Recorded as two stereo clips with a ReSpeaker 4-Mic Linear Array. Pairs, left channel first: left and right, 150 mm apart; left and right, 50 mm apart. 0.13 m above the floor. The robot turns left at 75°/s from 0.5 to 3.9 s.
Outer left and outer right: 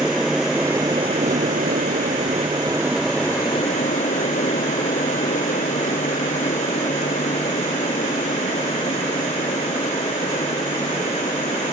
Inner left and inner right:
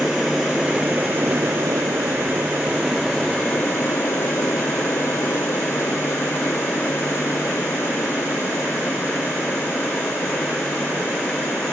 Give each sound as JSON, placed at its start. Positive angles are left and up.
{"t": 0.0, "sound": "an aircraft", "side_deg": -5}